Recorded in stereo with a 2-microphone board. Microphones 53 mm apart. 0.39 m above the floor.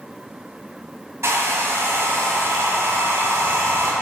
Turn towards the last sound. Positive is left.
turn(degrees=-65)  # may be behind; listen again after turning